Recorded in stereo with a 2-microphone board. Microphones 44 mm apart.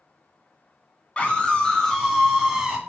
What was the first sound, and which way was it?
A scream, 30° left (ahead or behind).